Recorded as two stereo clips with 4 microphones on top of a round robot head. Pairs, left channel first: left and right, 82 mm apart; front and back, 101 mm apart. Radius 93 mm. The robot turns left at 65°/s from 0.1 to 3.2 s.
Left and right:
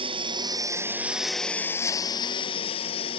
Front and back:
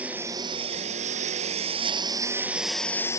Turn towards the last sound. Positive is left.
turn(degrees=55)